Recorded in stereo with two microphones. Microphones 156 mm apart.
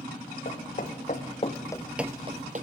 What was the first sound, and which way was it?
Footsteps, 55° left (ahead or behind).